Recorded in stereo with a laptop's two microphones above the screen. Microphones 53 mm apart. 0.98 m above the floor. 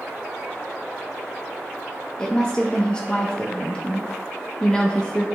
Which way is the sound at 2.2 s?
15° left (ahead or behind).